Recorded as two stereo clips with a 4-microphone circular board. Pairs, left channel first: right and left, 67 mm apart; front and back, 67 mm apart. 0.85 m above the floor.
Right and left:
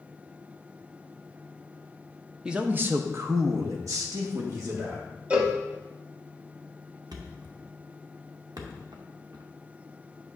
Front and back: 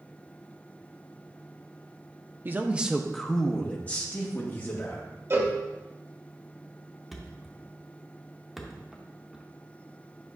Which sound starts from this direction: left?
A thud, at 7.1 s.